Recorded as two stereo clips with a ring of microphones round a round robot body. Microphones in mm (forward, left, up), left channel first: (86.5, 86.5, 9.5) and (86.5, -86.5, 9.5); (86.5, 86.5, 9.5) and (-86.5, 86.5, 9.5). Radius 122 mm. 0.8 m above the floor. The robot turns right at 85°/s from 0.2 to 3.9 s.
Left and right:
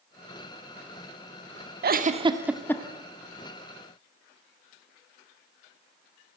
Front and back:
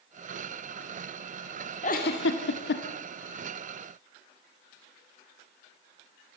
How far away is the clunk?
No clunk in this recording.